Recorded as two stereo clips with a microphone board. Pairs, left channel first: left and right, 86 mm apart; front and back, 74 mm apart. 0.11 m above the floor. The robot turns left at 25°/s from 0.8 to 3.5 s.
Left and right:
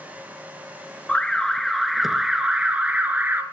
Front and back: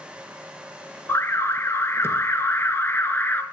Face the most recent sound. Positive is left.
turn(degrees=-45)